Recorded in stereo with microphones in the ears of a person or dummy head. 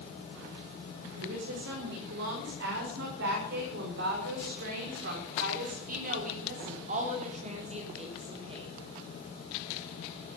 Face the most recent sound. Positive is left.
turn(degrees=-25)  # may be behind; listen again after turning